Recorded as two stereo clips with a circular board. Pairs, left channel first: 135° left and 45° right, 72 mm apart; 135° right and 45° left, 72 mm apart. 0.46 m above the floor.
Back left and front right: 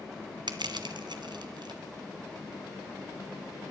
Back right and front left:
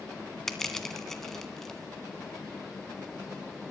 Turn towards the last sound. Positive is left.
turn(degrees=-50)